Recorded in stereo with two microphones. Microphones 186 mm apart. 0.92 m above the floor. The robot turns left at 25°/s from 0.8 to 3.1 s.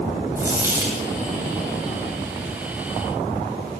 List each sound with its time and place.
0.4 s a dropped coin: 15° right (ahead or behind), 2.5 m; by 1.1 s 5° right (ahead or behind), 2.5 m